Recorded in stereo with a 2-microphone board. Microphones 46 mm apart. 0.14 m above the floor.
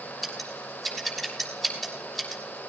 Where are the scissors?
5° right (ahead or behind), 6 m.